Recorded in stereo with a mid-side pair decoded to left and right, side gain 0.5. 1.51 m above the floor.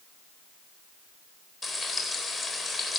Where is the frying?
15° left, 4 m.